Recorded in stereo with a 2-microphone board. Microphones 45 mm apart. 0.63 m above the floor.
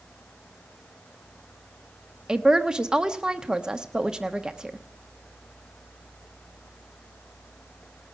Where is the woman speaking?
20° right (ahead or behind), 0.9 m.